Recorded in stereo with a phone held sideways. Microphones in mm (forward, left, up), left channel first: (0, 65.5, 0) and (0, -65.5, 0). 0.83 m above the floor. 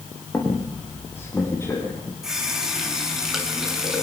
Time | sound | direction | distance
0.3 | a squeak | 20° left (ahead or behind) | 7 m
2.2 | a running tap | 5° right (ahead or behind) | 6 m